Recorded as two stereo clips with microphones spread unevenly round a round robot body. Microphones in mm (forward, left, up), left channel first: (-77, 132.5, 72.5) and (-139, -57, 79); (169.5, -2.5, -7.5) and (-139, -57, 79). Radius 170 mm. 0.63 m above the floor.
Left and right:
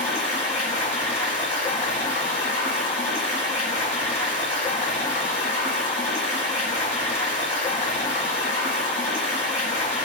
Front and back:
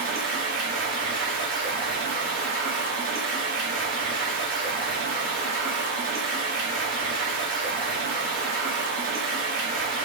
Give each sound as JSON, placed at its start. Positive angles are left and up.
{"t": 0.0, "sound": "running water", "azimuth_deg": 130, "distance_m": 1.8}